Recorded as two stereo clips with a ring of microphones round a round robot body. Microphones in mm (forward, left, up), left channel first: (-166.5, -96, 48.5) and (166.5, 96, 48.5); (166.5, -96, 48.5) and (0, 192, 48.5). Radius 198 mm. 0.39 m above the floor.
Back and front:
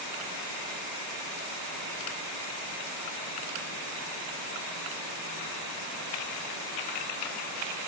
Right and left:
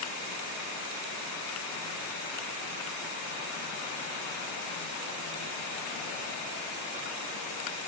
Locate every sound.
Only background noise.